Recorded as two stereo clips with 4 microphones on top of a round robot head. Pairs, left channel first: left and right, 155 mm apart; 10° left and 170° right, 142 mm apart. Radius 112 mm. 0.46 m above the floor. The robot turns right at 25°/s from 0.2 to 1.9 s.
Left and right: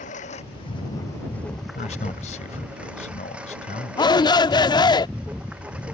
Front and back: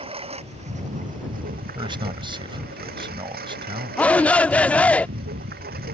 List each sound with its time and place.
0.0 s a lawn mower: 145° left; by 5.9 s 175° right
1.8 s a man speaking: 135° left
4.0 s a shout: 80° left